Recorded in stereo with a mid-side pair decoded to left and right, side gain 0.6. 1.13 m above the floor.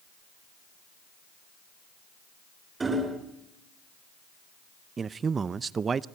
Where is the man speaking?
30° right, 0.6 m.